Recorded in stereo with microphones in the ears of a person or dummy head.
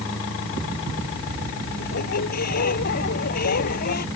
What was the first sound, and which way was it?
A squeak, 55° left (ahead or behind).